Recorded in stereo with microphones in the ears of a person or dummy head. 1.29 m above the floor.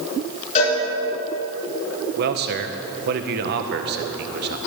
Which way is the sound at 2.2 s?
55° right (ahead or behind).